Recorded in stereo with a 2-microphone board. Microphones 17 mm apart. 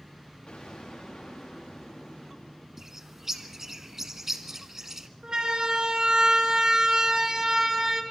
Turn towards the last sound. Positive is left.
turn(degrees=-30)  # may be behind; listen again after turning